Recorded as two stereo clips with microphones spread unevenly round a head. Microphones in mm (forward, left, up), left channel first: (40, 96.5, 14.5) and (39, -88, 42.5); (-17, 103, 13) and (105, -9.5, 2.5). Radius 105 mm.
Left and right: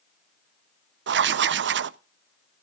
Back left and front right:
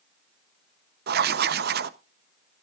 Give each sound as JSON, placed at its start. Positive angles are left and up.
{"t": 1.1, "sound": "writing", "azimuth_deg": -65, "distance_m": 0.6}